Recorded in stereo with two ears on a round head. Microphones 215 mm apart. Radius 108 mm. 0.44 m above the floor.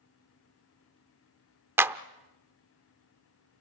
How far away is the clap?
About 0.5 m.